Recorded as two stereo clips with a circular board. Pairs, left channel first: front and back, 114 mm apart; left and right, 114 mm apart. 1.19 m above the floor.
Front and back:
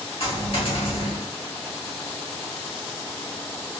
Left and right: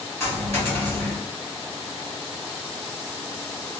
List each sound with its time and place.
0.2 s a dropped coin: 20° left, 2 m